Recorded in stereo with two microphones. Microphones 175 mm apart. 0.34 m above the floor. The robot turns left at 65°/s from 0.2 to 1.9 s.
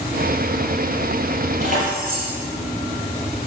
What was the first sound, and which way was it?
Keys jangling, 40° right (ahead or behind).